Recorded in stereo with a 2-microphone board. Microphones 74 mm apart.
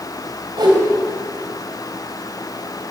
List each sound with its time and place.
0.6 s a whoosh: 80° right, 3 m